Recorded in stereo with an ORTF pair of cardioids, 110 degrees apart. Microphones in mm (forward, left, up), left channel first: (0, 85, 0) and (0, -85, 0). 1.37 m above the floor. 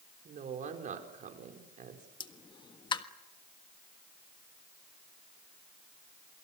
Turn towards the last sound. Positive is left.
turn(degrees=25)